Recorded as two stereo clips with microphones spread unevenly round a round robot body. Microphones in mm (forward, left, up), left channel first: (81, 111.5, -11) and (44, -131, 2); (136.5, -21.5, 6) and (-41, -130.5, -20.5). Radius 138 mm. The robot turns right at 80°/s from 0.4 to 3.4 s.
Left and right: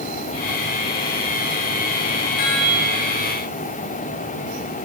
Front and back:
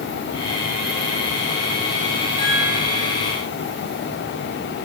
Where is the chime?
105° left, 9.5 m; by 3.2 s 170° left, 9.5 m.